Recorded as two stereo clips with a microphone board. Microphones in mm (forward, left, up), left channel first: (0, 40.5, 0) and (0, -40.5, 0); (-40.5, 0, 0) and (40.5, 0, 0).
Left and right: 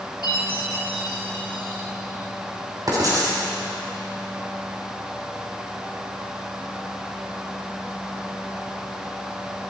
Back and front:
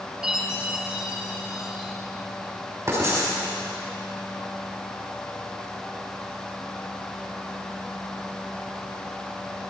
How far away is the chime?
About 3 m.